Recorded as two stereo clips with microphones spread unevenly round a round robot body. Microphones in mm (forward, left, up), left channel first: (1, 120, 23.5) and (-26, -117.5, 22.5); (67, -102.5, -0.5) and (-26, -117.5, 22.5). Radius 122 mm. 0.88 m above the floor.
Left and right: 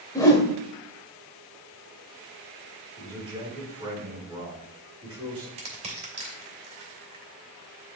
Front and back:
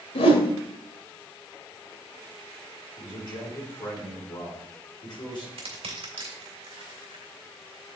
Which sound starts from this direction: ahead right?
A man speaking, at 3.0 s.